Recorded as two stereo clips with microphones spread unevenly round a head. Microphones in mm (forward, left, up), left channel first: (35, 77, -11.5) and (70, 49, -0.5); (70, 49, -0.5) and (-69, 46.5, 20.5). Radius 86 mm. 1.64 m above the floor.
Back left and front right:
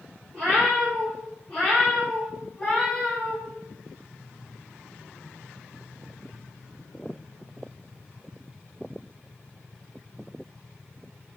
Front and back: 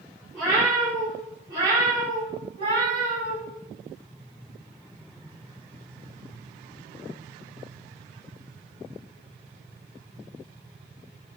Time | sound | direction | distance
0.3 | a cat meowing | 95° right | 1.9 m